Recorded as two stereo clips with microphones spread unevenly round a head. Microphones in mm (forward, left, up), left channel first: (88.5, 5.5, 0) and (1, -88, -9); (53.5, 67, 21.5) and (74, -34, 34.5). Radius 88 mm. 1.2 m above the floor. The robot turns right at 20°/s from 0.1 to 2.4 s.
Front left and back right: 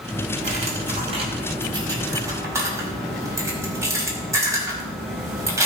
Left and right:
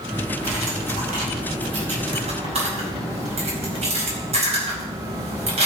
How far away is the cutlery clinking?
About 5 m.